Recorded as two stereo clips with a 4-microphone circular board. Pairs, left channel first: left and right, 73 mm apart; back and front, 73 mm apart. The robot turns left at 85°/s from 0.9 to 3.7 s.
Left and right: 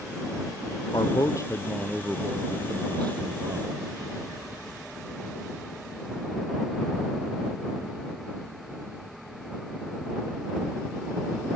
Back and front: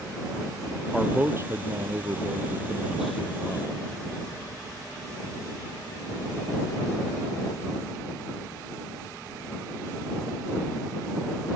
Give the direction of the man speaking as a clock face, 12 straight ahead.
9 o'clock.